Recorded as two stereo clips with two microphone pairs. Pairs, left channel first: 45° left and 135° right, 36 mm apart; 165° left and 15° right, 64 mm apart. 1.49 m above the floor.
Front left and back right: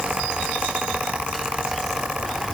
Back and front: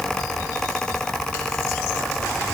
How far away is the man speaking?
No man speaking in this recording.